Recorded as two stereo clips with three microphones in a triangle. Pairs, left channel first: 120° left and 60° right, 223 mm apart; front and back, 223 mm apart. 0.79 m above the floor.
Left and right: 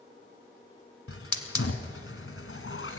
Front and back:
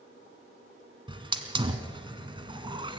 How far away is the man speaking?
I don't hear a man speaking.